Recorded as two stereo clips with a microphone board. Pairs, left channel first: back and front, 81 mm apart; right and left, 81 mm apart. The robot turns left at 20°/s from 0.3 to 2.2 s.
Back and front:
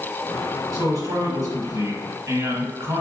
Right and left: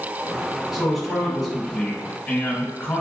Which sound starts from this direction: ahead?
A man speaking, at 0.7 s.